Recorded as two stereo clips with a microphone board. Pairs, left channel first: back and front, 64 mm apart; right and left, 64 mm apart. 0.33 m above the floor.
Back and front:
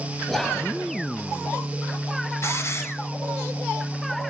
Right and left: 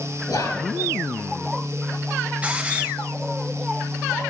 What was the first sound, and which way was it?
Whispering, 100° right.